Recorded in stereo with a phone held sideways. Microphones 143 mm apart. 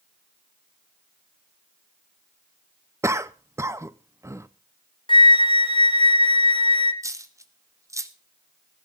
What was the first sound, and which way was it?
A cough, 20° right (ahead or behind).